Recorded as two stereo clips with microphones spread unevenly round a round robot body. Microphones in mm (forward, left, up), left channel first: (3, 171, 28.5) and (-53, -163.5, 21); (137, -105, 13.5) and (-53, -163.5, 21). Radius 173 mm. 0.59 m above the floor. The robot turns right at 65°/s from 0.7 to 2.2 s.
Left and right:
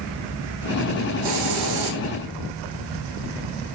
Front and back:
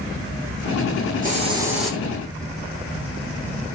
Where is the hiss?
115° right, 8.5 m; by 2.0 s 65° right, 8.5 m.